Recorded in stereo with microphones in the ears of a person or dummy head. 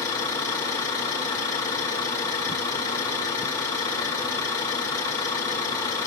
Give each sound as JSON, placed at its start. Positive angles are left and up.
{"t": 0.0, "sound": "an engine running", "side_deg": 25, "distance_m": 9.5}